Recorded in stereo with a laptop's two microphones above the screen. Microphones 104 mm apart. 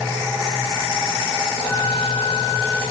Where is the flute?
5° left (ahead or behind), 2.5 m.